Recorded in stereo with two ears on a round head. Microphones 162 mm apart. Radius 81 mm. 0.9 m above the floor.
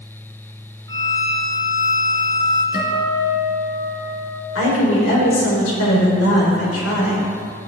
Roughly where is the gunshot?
No gunshot in this recording.